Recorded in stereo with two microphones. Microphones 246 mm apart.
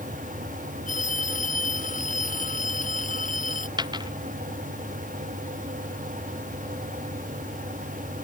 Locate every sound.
0.9 s a phone ringing: 35° left (ahead or behind)
3.8 s a dropped coin: 15° right (ahead or behind)